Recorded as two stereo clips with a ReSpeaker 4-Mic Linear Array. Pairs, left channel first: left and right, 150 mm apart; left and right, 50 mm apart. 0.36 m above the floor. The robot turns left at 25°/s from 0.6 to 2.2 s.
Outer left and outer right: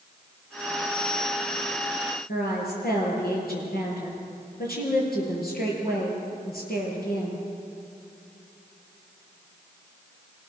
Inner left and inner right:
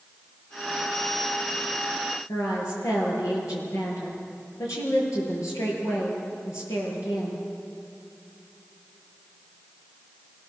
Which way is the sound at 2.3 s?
75° left (ahead or behind).